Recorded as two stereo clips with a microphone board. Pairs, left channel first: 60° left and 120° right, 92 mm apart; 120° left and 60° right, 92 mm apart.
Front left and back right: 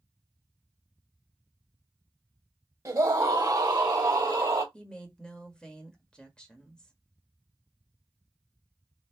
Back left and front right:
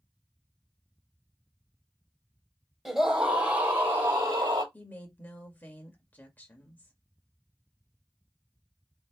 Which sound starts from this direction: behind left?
A woman speaking, at 4.7 s.